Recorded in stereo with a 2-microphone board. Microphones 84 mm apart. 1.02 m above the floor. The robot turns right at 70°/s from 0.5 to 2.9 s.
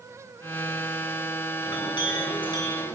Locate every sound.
1.6 s a clink: 50° left, 7.5 m; by 3.0 s 140° left, 7.5 m